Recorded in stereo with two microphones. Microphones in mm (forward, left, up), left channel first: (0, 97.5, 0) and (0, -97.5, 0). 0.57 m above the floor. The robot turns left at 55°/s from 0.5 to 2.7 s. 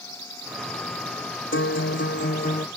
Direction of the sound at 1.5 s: 100° left.